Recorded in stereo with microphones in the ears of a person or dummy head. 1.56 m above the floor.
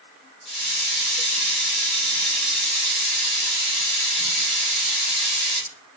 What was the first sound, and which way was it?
A hiss, 5° left (ahead or behind).